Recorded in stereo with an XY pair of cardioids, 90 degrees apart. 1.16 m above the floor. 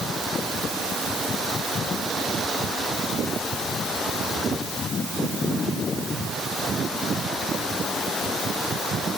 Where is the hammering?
No hammering in this recording.